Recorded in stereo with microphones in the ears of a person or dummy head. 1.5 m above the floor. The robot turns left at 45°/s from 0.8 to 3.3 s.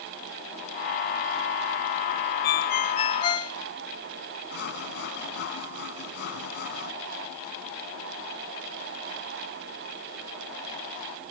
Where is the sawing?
55° left (ahead or behind).